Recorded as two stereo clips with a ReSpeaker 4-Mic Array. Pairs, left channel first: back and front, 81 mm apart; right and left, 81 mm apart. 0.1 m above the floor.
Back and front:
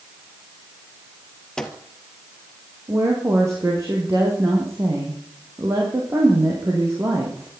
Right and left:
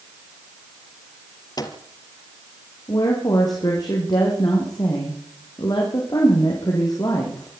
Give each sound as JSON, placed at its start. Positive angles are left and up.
{"t": 1.6, "sound": "a microwave", "azimuth_deg": -100, "distance_m": 2.5}
{"t": 2.9, "sound": "a woman speaking", "azimuth_deg": -55, "distance_m": 5.0}